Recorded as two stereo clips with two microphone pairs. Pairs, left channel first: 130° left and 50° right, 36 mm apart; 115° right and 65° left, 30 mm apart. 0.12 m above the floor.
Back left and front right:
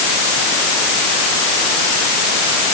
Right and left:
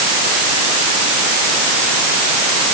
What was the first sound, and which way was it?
Only background noise.